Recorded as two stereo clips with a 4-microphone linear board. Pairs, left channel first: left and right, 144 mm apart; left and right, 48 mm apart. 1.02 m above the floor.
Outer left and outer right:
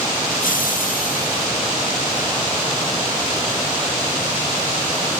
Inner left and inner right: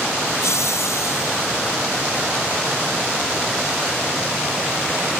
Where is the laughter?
80° left; by 1.5 s 75° left (ahead or behind).